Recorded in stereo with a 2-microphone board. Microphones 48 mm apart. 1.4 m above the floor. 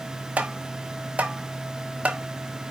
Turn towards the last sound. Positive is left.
turn(degrees=-25)  # may be behind; listen again after turning